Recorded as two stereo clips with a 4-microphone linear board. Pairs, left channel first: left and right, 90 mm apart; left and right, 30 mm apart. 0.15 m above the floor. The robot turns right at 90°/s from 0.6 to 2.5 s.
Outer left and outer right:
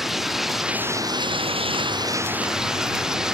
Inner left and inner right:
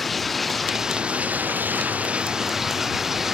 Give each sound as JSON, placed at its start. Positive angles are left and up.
{"t": 0.0, "sound": "running water", "azimuth_deg": 180}